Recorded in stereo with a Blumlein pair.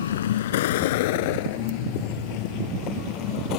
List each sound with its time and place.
0.0 s a vehicle: 65° left; by 3.6 s 40° left